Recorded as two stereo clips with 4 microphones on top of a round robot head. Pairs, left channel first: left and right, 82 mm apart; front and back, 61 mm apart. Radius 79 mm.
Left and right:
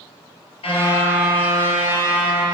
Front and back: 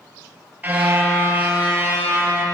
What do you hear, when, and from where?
0.6 s a car horn: 120° left, 5.5 m